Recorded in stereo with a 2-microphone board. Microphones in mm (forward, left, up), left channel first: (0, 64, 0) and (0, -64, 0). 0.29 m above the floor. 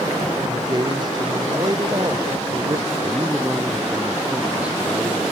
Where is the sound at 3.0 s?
10° right (ahead or behind).